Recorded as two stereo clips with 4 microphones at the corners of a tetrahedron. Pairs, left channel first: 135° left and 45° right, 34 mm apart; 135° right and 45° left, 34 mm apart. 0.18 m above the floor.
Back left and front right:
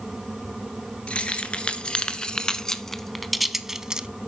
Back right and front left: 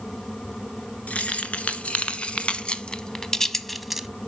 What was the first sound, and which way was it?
Keys jangling, 175° right.